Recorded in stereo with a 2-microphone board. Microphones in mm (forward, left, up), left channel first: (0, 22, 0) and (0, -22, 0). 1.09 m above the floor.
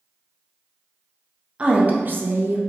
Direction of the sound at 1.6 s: 25° right (ahead or behind).